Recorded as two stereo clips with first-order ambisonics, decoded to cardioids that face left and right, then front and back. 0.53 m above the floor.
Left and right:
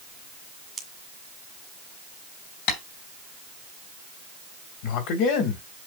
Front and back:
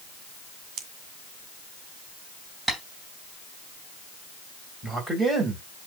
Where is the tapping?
95° left, 3 m.